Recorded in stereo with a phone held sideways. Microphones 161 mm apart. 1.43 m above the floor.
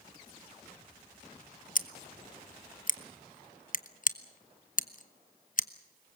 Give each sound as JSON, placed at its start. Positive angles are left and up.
{"t": 1.8, "sound": "scissors", "side_deg": 55, "distance_m": 0.7}